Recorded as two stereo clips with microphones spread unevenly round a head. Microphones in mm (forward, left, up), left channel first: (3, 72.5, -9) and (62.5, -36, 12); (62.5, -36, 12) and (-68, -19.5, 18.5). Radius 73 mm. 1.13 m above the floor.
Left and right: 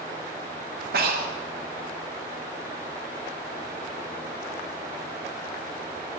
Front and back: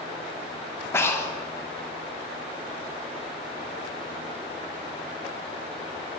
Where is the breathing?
75° right, 1.3 m.